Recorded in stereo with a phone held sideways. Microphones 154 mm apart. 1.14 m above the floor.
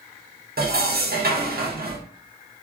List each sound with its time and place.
0.6 s dishes clattering: 65° right (ahead or behind), 0.7 m